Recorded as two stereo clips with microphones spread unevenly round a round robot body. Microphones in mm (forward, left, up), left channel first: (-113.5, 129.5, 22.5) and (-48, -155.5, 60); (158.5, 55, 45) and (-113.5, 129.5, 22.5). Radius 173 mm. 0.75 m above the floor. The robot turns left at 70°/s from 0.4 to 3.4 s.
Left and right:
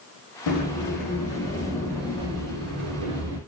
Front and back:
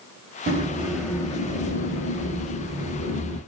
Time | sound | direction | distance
0.5 | a sliding door | 110° left | 0.7 m